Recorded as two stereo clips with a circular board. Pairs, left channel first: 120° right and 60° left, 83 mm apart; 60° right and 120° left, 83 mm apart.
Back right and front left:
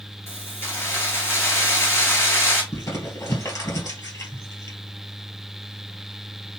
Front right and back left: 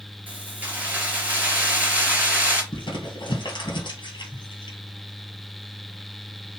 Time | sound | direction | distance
0.3 | keys jangling | 175° right | 2 m
2.7 | crumpling | 75° right | 2.0 m